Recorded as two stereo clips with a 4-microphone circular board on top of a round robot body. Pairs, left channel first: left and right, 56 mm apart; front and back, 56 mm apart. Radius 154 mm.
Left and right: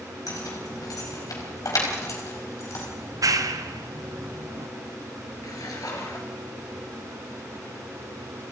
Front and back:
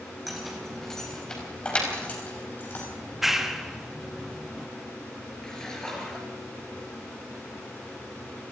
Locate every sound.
0.3 s keys jangling: 90° left, 5 m; by 2.9 s 55° left, 5 m
3.0 s a clap: 95° right, 1.4 m
5.4 s a splash: 80° left, 4 m